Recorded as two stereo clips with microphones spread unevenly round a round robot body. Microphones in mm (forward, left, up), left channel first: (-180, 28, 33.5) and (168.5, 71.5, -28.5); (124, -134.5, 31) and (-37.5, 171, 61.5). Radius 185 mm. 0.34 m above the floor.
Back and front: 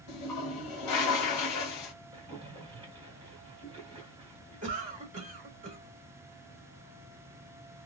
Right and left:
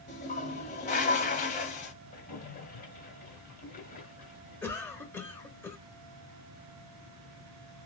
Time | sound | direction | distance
0.1 | a toilet flushing | 130° right | 0.7 m
2.1 | a splash | 35° right | 1.6 m
4.6 | a cough | 5° left | 1.1 m